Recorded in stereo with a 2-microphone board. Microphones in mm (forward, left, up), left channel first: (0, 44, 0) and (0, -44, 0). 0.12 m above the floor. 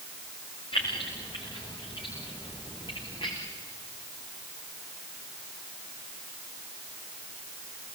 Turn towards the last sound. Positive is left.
turn(degrees=65)  # may be behind; listen again after turning